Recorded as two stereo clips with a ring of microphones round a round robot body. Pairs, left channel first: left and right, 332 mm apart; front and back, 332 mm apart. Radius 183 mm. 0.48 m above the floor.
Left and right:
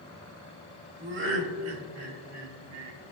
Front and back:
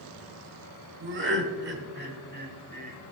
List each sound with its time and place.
1.0 s laughter: 140° right, 1.8 m; by 3.0 s 120° right, 3 m